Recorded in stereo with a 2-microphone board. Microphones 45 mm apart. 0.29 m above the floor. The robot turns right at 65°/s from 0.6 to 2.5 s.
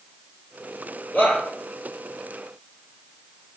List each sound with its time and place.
1.1 s a shout: 45° left (ahead or behind), 7.5 m; by 1.4 s 60° left (ahead or behind), 7.5 m